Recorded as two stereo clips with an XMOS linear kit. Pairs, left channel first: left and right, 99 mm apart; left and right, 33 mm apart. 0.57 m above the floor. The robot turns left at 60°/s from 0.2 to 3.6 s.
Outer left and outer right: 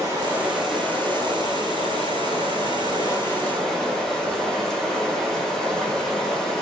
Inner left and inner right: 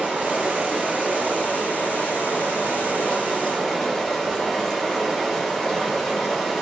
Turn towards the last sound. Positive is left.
turn(degrees=5)